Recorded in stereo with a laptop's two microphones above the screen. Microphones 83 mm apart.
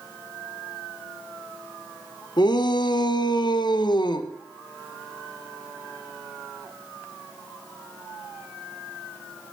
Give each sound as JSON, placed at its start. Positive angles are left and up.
{"t": 2.4, "sound": "a shout", "side_deg": 60, "distance_m": 0.8}